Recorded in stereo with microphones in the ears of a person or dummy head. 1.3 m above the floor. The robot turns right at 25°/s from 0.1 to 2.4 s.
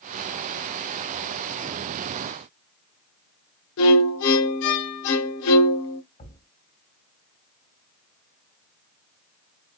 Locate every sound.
3.8 s a violin: 65° left (ahead or behind), 0.8 m
6.2 s a thud: 40° left (ahead or behind), 2 m